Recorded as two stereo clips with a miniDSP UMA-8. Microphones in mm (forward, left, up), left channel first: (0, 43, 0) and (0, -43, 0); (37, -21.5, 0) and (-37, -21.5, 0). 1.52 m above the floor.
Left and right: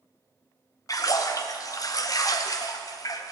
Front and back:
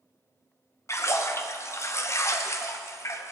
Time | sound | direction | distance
0.9 | a splash | 45° left | 0.9 m